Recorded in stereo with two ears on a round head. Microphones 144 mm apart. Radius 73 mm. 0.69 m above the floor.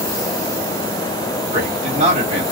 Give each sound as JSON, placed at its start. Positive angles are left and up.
{"t": 1.5, "sound": "a man speaking", "side_deg": -45, "distance_m": 1.6}